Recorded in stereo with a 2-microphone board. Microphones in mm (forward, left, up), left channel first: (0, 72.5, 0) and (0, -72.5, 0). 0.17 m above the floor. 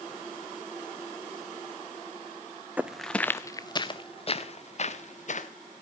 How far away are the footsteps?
About 0.6 m.